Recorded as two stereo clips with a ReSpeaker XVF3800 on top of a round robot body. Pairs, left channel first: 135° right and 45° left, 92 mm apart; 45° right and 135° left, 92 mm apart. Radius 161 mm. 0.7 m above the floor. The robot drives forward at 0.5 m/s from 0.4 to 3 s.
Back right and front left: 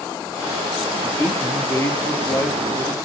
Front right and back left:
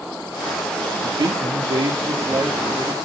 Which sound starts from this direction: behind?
A man speaking, at 1.0 s.